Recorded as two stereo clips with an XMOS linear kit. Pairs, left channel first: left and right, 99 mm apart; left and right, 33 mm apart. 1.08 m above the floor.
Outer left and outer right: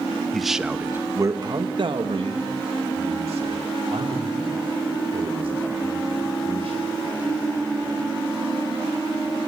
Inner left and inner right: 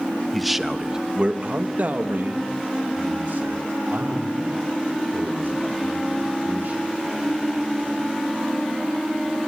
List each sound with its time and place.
0.3 s a man speaking: centre (ahead or behind), 1.1 m; by 7.0 s 75° right (ahead or behind), 4.5 m